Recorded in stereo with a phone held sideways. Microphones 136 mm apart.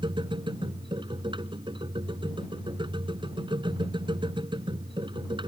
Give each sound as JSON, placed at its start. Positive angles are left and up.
{"t": 0.0, "sound": "a machine running", "side_deg": -35}